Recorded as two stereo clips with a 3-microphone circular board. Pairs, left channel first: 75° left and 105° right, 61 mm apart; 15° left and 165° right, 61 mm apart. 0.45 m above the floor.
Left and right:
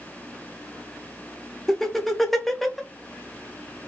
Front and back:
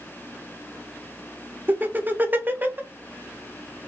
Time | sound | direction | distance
1.7 | laughter | 160° left | 1.0 m